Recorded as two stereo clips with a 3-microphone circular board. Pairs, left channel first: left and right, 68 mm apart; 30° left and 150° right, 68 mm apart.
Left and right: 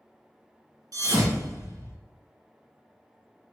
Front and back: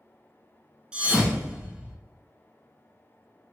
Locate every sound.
0.9 s a thud: 75° right, 1.0 m